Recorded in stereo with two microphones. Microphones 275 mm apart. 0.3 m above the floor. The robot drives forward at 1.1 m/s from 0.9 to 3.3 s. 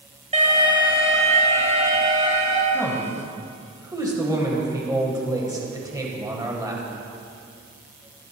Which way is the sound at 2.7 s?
10° right (ahead or behind).